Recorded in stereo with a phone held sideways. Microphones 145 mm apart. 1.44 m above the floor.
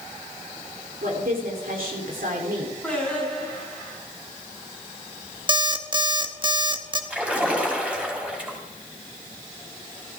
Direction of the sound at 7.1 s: 10° right (ahead or behind).